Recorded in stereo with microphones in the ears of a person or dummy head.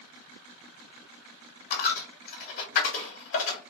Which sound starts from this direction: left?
A dropped coin, at 1.7 s.